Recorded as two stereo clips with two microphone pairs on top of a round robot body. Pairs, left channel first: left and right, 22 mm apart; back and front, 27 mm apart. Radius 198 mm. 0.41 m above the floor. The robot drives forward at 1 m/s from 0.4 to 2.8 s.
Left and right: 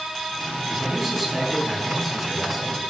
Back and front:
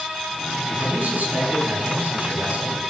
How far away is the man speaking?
About 7 m.